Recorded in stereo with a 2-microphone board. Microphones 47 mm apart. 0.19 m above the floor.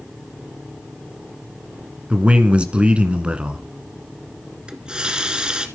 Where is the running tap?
20° right (ahead or behind), 1.6 m.